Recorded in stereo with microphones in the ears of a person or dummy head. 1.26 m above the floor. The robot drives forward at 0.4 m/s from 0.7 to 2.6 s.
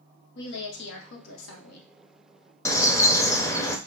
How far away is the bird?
About 0.5 m.